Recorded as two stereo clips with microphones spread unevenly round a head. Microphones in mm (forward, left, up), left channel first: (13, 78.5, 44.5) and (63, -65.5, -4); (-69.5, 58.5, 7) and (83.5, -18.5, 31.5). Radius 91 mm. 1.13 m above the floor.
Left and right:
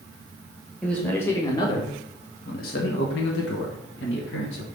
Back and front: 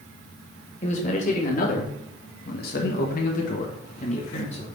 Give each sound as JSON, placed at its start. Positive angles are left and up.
{"t": 0.8, "sound": "a man speaking", "azimuth_deg": -160, "distance_m": 1.7}